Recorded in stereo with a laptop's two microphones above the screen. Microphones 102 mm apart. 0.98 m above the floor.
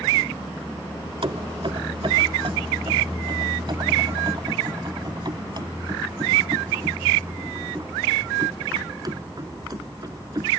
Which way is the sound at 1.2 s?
65° right (ahead or behind).